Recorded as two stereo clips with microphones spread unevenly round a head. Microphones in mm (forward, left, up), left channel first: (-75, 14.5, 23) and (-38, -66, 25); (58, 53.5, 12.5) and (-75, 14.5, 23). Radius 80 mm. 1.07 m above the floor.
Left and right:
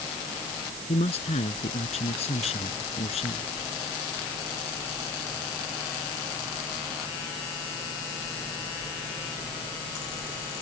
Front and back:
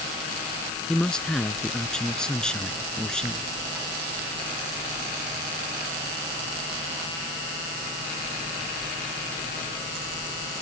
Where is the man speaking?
100° left.